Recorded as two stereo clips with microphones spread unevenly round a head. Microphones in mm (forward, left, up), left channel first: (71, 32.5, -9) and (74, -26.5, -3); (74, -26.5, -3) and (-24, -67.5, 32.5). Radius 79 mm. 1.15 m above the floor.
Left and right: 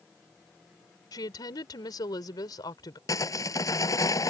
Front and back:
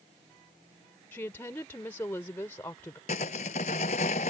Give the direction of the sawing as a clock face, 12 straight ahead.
10 o'clock.